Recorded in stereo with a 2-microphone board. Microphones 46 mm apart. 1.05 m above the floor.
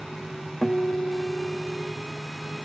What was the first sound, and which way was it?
A guitar, 5° left (ahead or behind).